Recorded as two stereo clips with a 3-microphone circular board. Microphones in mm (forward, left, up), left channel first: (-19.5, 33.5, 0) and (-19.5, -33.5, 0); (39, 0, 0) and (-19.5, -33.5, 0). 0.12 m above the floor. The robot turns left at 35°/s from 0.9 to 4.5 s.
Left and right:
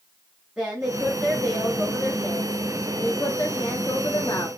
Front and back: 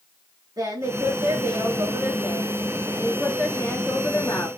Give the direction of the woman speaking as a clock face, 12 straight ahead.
6 o'clock.